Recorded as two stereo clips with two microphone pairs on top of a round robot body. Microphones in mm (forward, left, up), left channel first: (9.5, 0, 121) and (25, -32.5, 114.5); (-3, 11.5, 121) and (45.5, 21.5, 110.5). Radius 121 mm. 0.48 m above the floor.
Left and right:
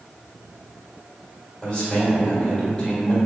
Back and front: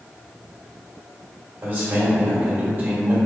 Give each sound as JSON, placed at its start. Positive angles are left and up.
{"t": 1.6, "sound": "a man speaking", "azimuth_deg": 40, "distance_m": 1.5}